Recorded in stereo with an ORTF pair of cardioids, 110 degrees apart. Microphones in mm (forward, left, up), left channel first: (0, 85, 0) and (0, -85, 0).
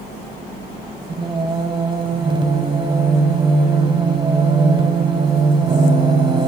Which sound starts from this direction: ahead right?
Singing, at 1.1 s.